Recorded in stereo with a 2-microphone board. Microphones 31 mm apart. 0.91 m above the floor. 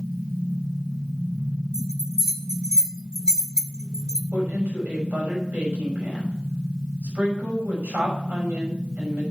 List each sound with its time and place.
1.7 s a bell: 20° right (ahead or behind), 1.7 m
4.3 s a woman speaking: 75° right (ahead or behind), 6 m